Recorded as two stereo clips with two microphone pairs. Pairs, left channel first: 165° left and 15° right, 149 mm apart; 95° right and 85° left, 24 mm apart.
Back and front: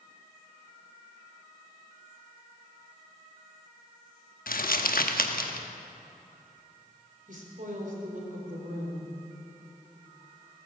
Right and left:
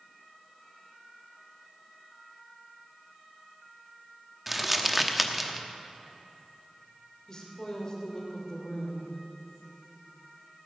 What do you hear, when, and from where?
4.5 s crumpling: 165° left, 1.0 m
7.3 s a woman speaking: 40° right, 3 m